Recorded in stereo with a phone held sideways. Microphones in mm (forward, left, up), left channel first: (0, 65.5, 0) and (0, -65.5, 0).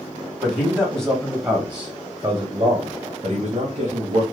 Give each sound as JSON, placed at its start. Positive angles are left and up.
{"t": 0.4, "sound": "a man speaking", "side_deg": 10, "distance_m": 1.4}